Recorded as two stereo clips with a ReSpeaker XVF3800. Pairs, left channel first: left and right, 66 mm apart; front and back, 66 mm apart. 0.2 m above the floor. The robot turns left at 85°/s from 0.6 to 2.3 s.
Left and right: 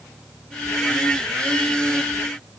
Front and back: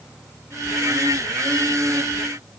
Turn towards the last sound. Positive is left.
No sound to turn to.